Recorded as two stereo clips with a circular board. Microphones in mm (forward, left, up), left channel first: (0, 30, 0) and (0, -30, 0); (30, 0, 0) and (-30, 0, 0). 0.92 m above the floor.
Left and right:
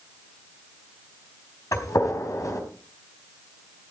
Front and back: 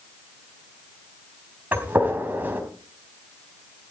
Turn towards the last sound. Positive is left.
turn(degrees=120)